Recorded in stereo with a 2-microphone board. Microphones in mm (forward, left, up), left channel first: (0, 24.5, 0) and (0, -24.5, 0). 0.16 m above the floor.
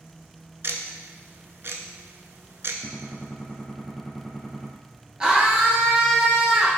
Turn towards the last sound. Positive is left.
turn(degrees=-15)  # may be behind; listen again after turning